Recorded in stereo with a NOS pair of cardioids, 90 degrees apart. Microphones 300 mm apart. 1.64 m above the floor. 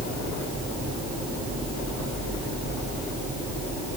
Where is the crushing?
No crushing in this recording.